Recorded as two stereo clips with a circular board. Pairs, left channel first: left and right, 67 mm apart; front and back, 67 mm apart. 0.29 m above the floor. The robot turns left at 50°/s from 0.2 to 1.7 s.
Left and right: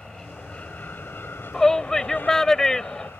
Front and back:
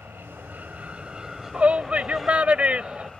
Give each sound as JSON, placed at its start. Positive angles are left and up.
{"t": 0.0, "sound": "an aircraft", "azimuth_deg": 160}
{"t": 1.5, "sound": "a shout", "azimuth_deg": 165}